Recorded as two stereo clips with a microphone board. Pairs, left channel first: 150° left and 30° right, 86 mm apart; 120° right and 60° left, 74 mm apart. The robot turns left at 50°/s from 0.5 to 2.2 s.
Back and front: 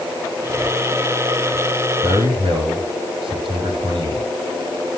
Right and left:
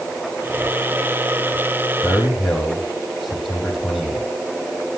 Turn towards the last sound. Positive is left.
turn(degrees=-30)